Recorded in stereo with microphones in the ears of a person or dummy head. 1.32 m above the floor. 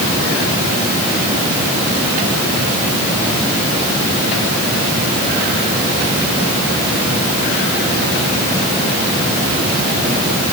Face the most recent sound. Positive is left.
No sound to turn to.